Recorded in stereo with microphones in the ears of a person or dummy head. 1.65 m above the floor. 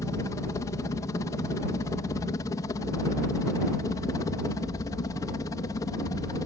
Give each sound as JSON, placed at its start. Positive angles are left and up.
{"t": 0.0, "sound": "a helicopter", "side_deg": 20}